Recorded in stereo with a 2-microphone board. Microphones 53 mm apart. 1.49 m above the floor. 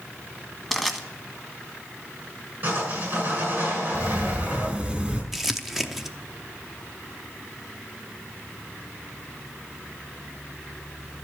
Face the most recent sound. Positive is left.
turn(degrees=-5)  # may be behind; listen again after turning